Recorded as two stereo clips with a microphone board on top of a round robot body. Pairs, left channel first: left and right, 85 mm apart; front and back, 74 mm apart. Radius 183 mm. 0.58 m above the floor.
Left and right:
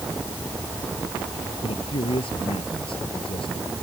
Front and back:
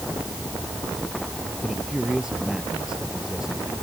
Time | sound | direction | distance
1.6 | a man speaking | 100° left | ?